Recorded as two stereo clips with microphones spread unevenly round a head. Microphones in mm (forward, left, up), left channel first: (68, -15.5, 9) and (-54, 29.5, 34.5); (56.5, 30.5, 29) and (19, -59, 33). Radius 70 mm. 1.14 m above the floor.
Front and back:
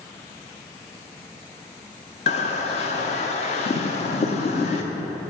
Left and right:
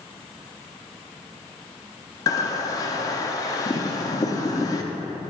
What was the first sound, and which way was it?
A bird, 20° left.